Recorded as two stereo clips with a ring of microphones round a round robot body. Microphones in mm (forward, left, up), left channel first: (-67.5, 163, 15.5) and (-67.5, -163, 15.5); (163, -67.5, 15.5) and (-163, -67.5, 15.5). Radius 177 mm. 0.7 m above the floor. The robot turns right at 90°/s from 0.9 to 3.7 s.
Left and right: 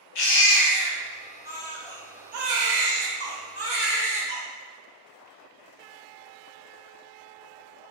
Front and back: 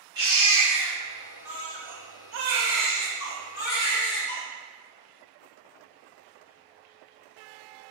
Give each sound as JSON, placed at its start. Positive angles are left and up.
{"t": 0.1, "sound": "a baby crying", "azimuth_deg": 100, "distance_m": 0.8}